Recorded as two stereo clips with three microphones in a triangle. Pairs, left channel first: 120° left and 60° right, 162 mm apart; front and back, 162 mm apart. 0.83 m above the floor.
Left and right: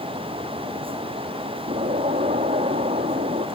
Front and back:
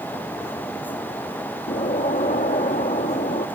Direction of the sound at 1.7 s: 30° right.